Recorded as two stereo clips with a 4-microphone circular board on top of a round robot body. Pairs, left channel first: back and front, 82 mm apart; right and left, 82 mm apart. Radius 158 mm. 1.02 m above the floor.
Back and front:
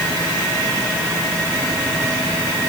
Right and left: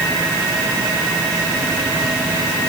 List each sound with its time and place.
Only background noise.